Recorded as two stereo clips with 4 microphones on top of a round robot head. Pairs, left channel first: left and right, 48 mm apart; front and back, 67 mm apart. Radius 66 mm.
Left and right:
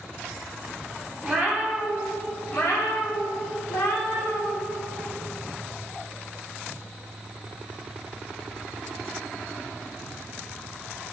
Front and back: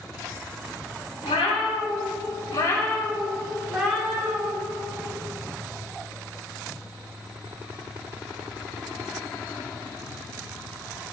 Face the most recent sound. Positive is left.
turn(degrees=115)